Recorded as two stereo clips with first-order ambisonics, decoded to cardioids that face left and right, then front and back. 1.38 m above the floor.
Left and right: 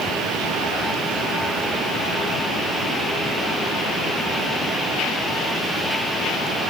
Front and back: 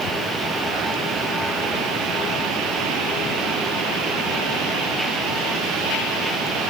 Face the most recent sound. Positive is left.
No sound to turn to.